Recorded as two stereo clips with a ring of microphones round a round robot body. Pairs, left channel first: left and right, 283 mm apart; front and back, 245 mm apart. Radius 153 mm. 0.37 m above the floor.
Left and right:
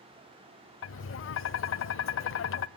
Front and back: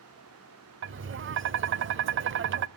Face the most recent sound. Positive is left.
turn(degrees=135)